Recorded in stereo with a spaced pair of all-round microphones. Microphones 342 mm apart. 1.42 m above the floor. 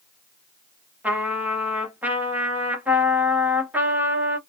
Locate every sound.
1.0 s a trumpet: 5° right (ahead or behind), 0.8 m